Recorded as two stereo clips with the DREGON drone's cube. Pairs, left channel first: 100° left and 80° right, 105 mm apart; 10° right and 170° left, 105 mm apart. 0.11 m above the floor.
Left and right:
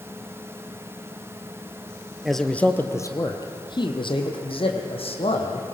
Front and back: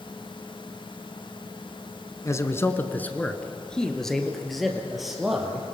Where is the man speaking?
10° left, 1.2 m; by 5.7 s 85° left, 3.5 m.